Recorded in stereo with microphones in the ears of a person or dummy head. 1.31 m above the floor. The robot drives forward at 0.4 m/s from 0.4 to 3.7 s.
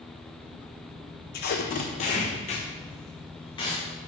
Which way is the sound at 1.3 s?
45° left (ahead or behind).